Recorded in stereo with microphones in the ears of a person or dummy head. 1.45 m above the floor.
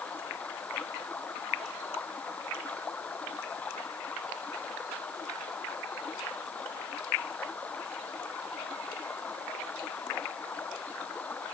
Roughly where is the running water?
Centre.